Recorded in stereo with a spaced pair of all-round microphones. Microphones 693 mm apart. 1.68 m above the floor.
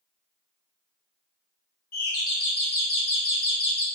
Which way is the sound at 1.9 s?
35° left (ahead or behind).